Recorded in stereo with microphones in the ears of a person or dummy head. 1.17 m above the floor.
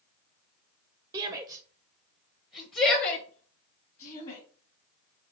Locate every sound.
1.1 s a shout: 15° right (ahead or behind), 0.7 m; by 4.4 s 40° left (ahead or behind), 2.0 m